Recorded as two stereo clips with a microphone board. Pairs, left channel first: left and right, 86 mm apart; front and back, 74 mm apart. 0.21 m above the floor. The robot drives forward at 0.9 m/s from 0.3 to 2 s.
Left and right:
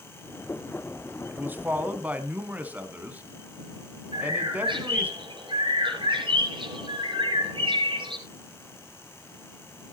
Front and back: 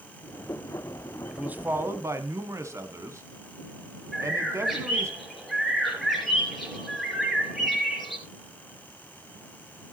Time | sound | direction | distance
1.3 | a man speaking | 120° right | 1.0 m
4.1 | a bird | 90° right | 4.5 m